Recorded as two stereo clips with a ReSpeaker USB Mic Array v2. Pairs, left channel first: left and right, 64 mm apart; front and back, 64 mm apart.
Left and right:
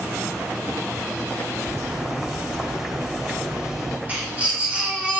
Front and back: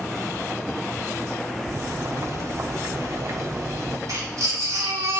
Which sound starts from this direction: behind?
Boiling, at 1.6 s.